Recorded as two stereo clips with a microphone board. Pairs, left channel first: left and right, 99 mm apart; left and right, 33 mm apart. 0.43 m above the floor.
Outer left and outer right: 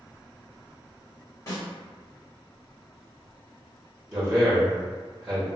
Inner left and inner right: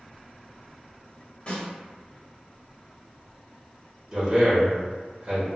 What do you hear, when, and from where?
1.5 s a snare drum: 35° left (ahead or behind), 1.9 m
4.1 s a man speaking: 20° right (ahead or behind), 1.2 m